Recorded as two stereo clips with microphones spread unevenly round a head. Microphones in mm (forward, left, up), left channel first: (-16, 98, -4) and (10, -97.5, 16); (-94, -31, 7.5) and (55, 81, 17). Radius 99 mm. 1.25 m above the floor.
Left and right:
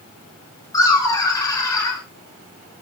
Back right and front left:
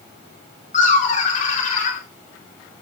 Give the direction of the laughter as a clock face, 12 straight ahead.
6 o'clock.